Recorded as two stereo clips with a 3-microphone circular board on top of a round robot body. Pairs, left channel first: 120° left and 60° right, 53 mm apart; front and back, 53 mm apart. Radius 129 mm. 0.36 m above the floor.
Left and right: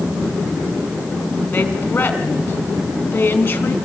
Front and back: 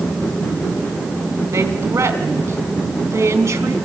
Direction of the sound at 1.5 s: 170° left.